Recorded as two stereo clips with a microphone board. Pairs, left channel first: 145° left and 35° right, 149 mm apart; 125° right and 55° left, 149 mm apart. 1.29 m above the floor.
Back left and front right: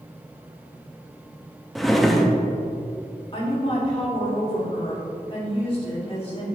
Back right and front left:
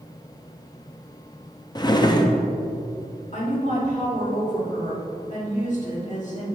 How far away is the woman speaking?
About 2 m.